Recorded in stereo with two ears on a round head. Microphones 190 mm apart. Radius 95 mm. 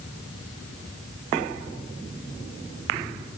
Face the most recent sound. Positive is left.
No sound to turn to.